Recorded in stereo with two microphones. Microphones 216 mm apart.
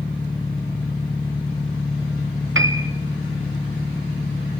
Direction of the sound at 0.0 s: 20° left (ahead or behind).